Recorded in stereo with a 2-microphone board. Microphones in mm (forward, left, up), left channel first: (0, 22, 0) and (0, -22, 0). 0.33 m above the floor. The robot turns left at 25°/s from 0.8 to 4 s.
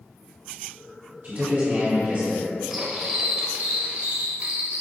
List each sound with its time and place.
1.2 s a man speaking: 40° right (ahead or behind), 1.7 m
2.7 s cutlery clinking: 15° right, 0.6 m; by 4.8 s 45° right, 0.6 m